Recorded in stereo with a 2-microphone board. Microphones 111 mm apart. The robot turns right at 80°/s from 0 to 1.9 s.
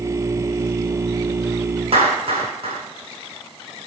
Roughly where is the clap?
Right.